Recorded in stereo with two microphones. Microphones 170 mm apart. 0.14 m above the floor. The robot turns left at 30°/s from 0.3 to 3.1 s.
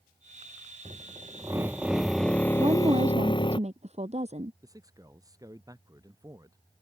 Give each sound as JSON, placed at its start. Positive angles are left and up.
{"t": 0.8, "sound": "a drill", "azimuth_deg": -145}
{"t": 2.6, "sound": "a woman speaking", "side_deg": -25}
{"t": 4.6, "sound": "a man speaking", "side_deg": -20}